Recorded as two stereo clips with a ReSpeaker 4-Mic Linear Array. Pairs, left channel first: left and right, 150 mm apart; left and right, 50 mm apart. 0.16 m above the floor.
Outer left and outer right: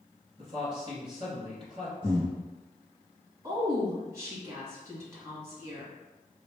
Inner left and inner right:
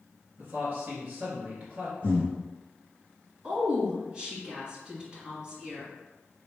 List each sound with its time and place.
0.4 s a man speaking: 40° right (ahead or behind), 1.5 m
2.0 s breathing: 40° right (ahead or behind), 2.0 m
3.4 s a woman speaking: 20° right (ahead or behind), 1.7 m